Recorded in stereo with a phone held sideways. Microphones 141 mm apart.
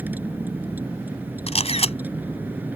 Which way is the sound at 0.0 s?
15° right (ahead or behind).